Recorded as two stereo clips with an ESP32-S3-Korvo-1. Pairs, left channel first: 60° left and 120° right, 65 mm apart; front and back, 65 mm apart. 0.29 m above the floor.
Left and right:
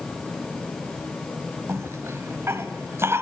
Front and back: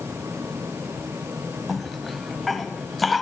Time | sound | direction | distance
1.7 | a cough | 90° right | 1.8 m